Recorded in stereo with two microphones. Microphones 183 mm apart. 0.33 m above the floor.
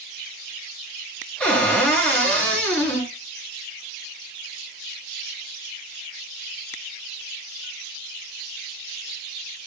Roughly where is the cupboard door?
Centre.